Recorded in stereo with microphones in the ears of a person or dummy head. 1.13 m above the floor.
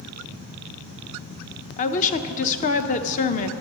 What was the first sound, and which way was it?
A woman speaking, 45° left (ahead or behind).